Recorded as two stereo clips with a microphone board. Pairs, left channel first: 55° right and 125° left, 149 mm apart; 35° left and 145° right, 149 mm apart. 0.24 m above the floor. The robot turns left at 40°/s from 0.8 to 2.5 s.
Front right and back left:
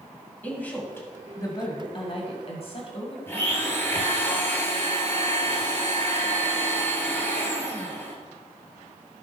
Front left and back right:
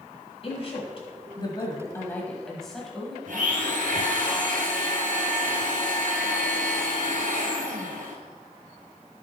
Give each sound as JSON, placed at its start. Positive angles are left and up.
{"t": 0.4, "sound": "a woman speaking", "azimuth_deg": 15, "distance_m": 1.9}
{"t": 3.3, "sound": "a blender", "azimuth_deg": -130, "distance_m": 1.8}